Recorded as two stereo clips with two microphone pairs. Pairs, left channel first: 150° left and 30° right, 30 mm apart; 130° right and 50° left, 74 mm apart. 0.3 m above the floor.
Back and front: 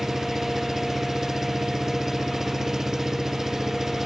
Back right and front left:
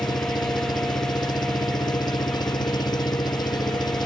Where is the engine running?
110° right.